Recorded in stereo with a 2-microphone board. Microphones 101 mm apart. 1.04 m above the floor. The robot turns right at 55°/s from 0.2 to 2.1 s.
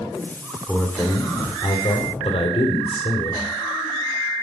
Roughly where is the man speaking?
Ahead.